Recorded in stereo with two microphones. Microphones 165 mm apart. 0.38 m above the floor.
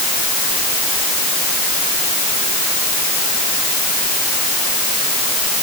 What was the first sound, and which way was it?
Only background noise.